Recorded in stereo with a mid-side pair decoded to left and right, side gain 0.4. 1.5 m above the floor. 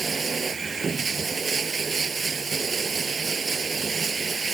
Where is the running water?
40° right.